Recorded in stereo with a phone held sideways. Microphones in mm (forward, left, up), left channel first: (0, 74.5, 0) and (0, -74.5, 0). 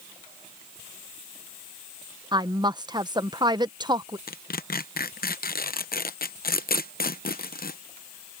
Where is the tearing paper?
85° left.